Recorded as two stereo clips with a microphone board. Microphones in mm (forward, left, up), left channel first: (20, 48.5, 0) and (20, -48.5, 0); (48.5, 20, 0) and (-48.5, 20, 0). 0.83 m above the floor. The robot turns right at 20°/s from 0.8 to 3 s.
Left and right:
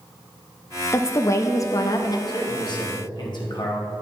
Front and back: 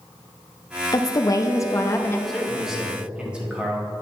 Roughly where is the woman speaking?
Ahead left.